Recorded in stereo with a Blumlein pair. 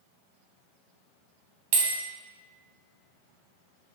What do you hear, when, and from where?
1.7 s a bell: 45° right, 0.7 m